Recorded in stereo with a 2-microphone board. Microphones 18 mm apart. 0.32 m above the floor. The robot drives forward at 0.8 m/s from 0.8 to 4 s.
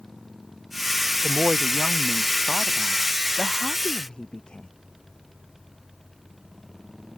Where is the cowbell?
No cowbell in this recording.